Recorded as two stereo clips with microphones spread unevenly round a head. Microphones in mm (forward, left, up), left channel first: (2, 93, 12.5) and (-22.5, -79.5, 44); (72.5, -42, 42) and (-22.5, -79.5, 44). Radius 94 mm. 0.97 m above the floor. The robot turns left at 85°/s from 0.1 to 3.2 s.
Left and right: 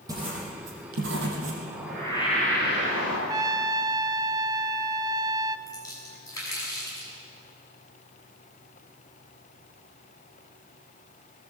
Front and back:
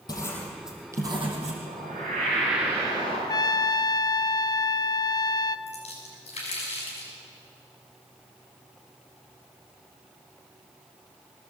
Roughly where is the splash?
Ahead.